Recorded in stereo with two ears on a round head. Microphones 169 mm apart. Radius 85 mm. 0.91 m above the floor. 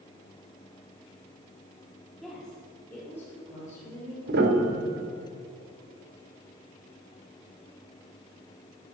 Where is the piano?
55° right (ahead or behind), 1.7 m.